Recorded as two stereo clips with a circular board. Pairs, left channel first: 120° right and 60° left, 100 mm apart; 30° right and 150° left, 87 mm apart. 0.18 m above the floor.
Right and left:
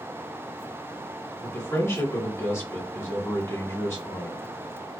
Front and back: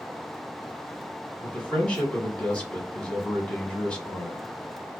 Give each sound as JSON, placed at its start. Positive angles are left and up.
{"t": 1.4, "sound": "a man speaking", "azimuth_deg": -95, "distance_m": 1.3}